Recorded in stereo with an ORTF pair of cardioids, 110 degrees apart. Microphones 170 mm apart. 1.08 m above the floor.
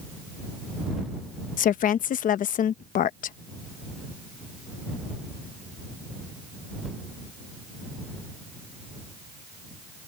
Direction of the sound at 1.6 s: 55° left.